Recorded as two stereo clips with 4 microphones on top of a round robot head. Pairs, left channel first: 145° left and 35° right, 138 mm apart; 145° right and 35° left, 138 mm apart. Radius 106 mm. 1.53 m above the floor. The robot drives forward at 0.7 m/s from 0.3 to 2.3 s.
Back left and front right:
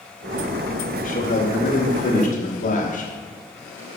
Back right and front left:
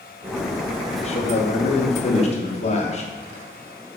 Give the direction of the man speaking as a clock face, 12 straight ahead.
6 o'clock.